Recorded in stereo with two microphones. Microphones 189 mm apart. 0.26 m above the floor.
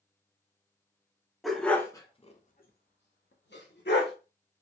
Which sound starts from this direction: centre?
A dog barking, at 1.4 s.